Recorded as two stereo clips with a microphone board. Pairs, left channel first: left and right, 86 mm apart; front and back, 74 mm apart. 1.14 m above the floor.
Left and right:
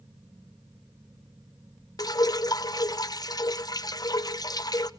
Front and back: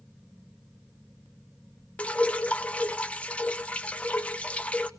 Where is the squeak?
No squeak in this recording.